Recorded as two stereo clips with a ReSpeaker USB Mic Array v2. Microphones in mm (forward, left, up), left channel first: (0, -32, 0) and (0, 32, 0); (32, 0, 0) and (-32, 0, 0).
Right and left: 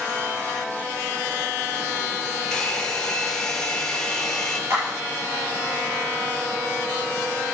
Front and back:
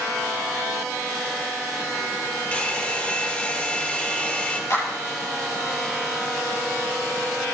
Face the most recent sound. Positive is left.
turn(degrees=40)